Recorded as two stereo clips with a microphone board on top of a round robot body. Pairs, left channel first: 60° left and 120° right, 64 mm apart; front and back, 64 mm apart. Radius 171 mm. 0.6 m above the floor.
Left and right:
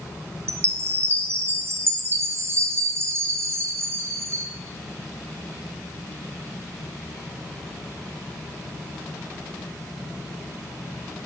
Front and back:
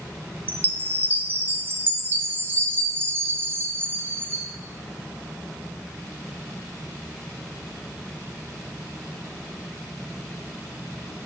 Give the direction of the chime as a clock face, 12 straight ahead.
5 o'clock.